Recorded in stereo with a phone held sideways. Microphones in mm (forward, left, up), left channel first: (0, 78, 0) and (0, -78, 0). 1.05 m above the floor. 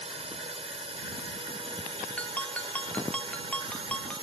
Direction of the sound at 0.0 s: 40° right (ahead or behind).